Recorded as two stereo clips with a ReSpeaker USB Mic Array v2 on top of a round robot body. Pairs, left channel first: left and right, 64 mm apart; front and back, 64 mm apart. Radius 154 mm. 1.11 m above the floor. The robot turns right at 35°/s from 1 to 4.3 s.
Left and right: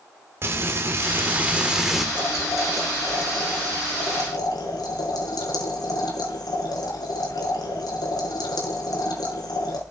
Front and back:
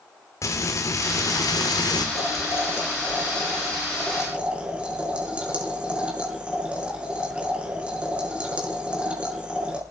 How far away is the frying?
About 3 m.